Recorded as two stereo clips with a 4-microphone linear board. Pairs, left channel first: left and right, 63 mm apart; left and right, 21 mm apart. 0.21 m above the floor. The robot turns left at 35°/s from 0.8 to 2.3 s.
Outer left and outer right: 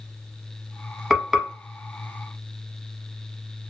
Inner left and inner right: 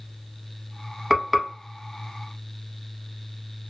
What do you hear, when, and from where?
1.1 s frying: centre (ahead or behind), 0.7 m; by 1.5 s 10° right (ahead or behind), 0.7 m